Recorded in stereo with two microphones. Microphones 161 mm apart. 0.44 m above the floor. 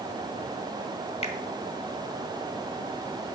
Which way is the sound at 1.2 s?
40° left (ahead or behind).